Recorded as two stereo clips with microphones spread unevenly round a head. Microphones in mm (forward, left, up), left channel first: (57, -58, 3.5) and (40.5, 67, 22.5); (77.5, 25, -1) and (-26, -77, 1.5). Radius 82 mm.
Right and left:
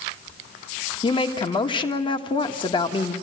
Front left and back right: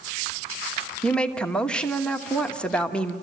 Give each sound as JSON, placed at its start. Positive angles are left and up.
{"t": 1.0, "sound": "a woman speaking", "azimuth_deg": -40, "distance_m": 1.5}